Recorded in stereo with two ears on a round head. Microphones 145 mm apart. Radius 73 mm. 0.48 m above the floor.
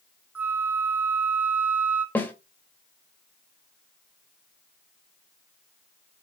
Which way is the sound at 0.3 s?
10° right (ahead or behind).